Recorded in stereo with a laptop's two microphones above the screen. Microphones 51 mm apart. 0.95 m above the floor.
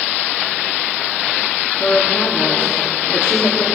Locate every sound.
1.8 s a woman speaking: 80° left, 1.7 m